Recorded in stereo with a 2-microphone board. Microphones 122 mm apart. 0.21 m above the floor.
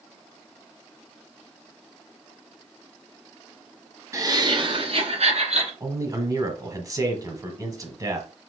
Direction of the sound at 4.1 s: 25° right (ahead or behind).